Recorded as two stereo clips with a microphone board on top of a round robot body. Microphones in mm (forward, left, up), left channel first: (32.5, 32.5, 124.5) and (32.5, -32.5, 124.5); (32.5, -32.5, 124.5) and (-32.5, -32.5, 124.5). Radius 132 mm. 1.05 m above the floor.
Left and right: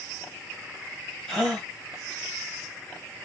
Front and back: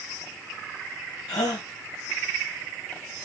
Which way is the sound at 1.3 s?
5° left.